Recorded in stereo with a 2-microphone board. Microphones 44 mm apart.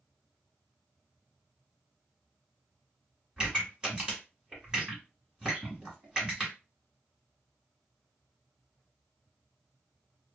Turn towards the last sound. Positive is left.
turn(degrees=-20)  # may be behind; listen again after turning